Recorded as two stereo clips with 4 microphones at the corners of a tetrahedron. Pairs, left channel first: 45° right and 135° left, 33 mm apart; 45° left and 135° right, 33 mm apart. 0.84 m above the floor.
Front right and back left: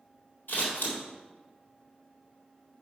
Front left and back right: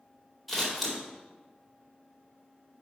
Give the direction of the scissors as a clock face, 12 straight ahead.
2 o'clock.